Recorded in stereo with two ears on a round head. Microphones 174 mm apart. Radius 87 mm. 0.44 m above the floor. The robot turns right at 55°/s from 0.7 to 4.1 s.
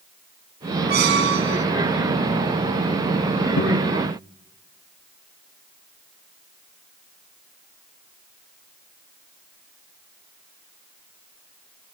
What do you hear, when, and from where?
0.9 s a squeak: 130° right, 1.5 m; by 1.6 s 90° right, 1.5 m
3.6 s a guitar: 85° left, 6.5 m; by 3.8 s 70° left (ahead or behind), 6.5 m